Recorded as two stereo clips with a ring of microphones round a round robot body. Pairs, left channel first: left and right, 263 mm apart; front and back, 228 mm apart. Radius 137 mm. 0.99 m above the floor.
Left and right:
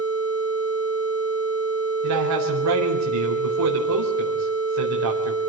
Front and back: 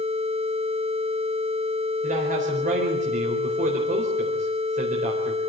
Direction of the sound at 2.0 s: 115° right.